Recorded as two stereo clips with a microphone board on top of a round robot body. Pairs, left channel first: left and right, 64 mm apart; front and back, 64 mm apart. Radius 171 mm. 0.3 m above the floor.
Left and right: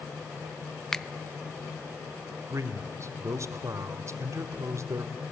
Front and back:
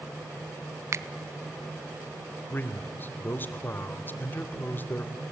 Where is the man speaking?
55° right, 1.6 m.